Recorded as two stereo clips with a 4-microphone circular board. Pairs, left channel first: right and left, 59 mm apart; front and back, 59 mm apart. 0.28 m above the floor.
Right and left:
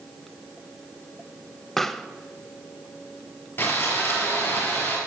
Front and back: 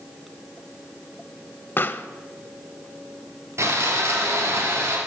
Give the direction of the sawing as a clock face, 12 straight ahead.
5 o'clock.